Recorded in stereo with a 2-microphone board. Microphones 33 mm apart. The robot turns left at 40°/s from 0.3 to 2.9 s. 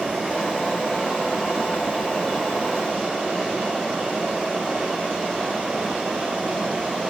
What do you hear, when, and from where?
Only background noise.